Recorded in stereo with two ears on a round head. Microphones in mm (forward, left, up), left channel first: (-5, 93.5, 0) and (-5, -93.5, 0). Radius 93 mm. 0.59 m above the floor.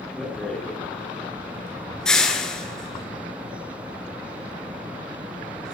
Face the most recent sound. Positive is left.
turn(degrees=5)  # may be behind; listen again after turning